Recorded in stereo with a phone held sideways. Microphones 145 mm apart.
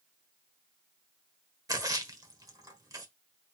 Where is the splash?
25° right (ahead or behind), 1.3 m.